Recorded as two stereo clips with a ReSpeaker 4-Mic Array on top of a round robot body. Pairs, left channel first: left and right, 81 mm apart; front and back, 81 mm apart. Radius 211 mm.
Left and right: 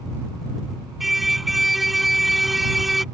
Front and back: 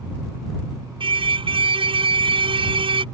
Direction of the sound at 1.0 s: Straight behind.